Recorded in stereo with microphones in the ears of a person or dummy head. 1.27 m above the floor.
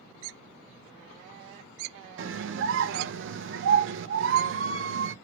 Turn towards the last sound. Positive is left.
turn(degrees=-70)  # may be behind; listen again after turning